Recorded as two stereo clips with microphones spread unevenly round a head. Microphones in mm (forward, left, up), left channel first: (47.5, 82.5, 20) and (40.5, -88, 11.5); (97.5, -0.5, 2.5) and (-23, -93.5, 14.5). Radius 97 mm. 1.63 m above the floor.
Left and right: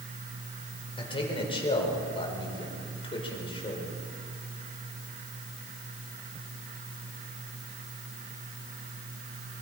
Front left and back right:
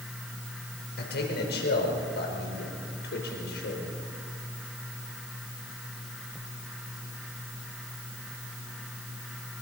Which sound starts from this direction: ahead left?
A man speaking, at 1.0 s.